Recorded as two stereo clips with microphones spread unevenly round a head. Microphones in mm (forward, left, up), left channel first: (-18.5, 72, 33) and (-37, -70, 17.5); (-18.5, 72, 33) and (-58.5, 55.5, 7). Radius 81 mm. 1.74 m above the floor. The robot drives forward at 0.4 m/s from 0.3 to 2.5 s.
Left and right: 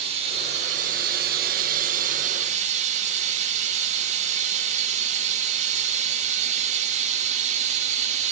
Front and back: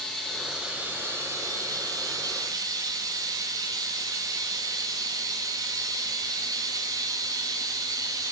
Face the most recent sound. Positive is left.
turn(degrees=-135)